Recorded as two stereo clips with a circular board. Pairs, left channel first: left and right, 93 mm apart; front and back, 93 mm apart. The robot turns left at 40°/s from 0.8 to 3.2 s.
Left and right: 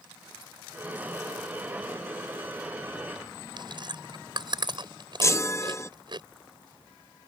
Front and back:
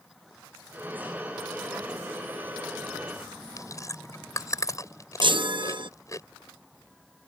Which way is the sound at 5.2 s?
150° left.